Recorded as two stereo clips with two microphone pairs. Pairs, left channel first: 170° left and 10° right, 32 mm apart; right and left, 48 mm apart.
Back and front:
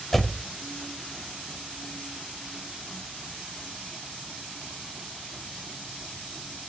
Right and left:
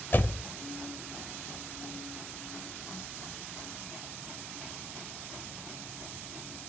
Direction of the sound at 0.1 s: 105° right.